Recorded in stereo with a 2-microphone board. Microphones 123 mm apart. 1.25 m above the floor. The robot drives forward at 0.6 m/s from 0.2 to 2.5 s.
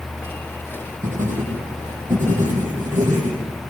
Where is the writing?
85° right, 9.5 m.